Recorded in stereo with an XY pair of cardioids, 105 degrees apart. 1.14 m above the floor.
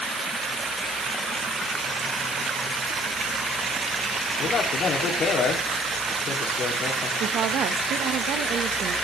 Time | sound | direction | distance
4.4 | a man speaking | 55° left | 2.5 m
7.2 | a woman speaking | 70° right | 1.0 m